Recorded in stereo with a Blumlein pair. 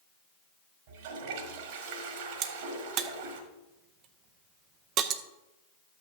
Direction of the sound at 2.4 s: 35° right.